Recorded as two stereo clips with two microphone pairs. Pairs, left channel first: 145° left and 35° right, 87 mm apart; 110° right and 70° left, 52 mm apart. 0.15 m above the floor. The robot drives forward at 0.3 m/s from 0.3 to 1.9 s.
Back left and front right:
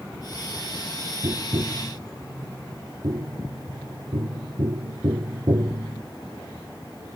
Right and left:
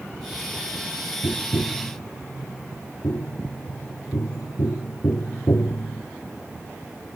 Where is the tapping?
75° right.